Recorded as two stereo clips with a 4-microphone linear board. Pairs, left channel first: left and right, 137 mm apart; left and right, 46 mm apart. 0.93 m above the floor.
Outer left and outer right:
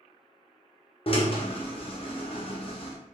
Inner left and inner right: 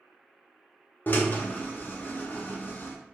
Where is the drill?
45° left (ahead or behind), 0.6 m.